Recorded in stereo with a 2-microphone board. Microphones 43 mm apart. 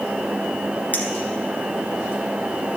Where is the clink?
45° left (ahead or behind), 1.7 m.